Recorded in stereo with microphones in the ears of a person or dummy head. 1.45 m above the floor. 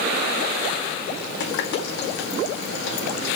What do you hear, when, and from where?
1.4 s a running tap: 65° left (ahead or behind), 1.7 m